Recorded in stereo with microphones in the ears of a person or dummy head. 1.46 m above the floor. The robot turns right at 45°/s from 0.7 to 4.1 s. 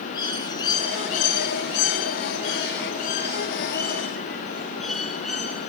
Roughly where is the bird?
Ahead left.